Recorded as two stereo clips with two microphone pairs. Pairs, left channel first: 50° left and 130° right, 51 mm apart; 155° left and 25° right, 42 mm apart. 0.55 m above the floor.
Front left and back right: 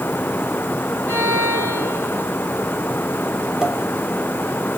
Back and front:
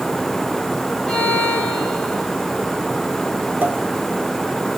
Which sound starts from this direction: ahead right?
A pop, at 3.6 s.